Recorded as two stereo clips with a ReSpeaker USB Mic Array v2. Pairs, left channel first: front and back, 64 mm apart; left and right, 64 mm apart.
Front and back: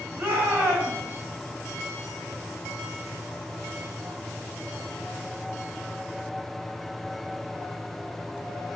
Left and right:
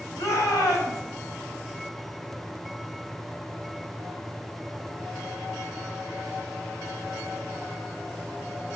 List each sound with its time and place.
0.2 s a shout: 120° left, 4.5 m